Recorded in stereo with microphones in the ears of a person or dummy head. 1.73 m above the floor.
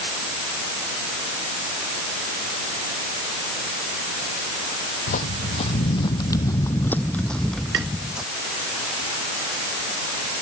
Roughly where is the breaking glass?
No breaking glass in this recording.